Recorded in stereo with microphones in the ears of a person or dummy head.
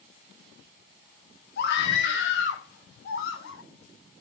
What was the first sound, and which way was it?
A scream, 65° left (ahead or behind).